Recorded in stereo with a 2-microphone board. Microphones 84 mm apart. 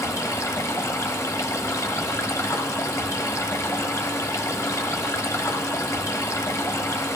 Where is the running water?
40° left (ahead or behind), 0.8 m.